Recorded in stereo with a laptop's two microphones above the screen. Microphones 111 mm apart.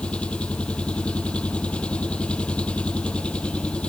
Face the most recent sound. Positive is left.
turn(degrees=10)  # may be behind; listen again after turning